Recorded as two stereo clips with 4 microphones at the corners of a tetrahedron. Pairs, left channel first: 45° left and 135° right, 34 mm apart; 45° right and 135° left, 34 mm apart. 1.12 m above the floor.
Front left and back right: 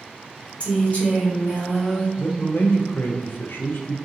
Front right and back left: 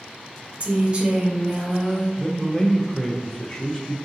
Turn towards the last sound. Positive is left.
turn(degrees=25)